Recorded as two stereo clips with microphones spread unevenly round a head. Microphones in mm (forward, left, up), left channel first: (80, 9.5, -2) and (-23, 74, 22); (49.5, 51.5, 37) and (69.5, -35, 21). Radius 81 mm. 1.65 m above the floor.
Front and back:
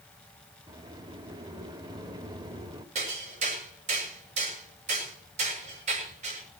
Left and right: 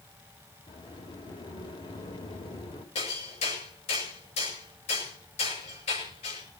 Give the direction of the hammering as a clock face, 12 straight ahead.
8 o'clock.